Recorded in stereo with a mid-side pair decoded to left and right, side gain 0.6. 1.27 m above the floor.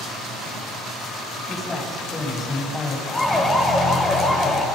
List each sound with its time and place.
1.5 s a man speaking: 20° left, 9.5 m; by 3.0 s 15° left, 9.5 m
3.1 s a siren: 10° left, 4.5 m